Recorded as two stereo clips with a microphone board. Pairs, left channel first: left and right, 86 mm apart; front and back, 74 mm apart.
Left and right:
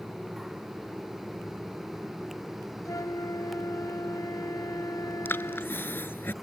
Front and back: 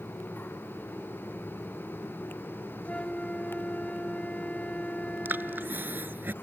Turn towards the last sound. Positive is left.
turn(degrees=135)